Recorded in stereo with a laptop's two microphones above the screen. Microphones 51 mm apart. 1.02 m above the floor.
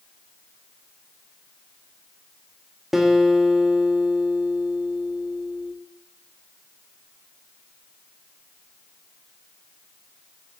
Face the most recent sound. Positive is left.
turn(degrees=-5)  # may be behind; listen again after turning